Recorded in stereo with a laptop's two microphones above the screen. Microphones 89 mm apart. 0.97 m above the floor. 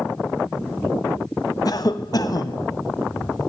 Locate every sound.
1.6 s a cough: 45° left (ahead or behind), 1.2 m